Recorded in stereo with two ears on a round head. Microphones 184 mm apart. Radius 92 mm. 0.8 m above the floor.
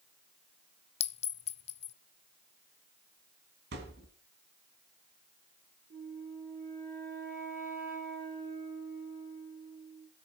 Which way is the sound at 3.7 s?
55° right (ahead or behind).